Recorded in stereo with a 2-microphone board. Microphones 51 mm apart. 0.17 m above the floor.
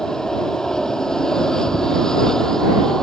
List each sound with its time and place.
0.0 s an aircraft: 10° left (ahead or behind)